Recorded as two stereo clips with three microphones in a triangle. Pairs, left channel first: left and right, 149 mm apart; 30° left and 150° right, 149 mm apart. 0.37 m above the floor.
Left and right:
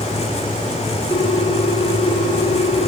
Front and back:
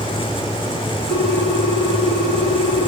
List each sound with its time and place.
1.1 s a ringtone: 20° left, 3.5 m